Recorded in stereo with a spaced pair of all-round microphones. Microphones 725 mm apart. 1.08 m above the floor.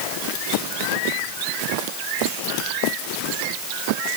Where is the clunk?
No clunk in this recording.